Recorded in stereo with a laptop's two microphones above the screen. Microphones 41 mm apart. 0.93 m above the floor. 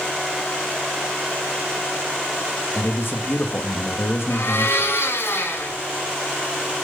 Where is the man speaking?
60° left (ahead or behind), 1.7 m.